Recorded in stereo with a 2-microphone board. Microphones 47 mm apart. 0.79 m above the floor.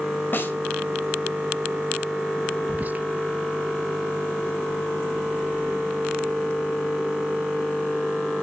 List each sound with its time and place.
0.3 s a snare drum: 45° left (ahead or behind), 2.0 m
2.7 s whispering: 35° right (ahead or behind), 0.8 m